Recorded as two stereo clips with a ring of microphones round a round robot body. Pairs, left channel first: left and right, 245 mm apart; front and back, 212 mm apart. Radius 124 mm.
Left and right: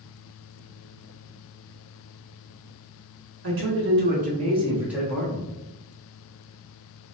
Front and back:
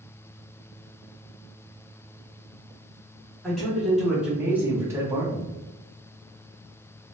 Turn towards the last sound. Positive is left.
turn(degrees=130)